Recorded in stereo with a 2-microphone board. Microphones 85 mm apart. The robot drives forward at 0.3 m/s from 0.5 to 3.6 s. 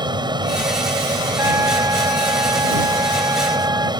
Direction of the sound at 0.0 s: 60° right (ahead or behind).